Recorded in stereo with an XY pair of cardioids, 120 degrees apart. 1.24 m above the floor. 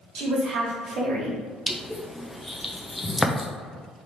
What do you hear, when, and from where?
0.1 s a woman speaking: 70° right, 1.6 m
1.7 s crushing: 10° left, 0.7 m